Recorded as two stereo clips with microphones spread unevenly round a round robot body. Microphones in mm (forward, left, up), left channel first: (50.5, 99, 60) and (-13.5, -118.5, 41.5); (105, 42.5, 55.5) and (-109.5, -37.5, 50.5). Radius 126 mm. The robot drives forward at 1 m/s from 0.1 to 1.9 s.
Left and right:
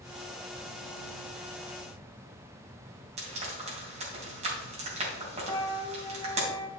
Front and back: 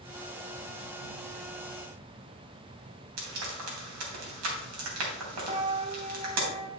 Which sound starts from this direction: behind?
Frying, at 3.2 s.